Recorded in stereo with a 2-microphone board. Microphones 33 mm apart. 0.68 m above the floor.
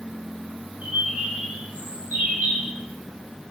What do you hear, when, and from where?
0.8 s a bird: 65° right (ahead or behind), 1.7 m